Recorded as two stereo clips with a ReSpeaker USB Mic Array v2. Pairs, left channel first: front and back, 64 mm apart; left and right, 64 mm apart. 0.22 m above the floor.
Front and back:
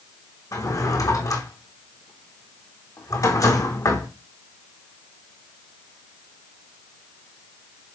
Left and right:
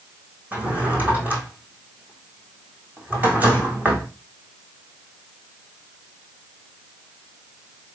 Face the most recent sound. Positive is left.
turn(degrees=-25)